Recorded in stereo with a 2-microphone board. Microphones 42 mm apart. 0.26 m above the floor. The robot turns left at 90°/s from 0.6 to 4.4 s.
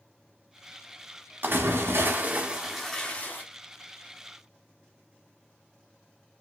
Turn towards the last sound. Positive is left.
turn(degrees=35)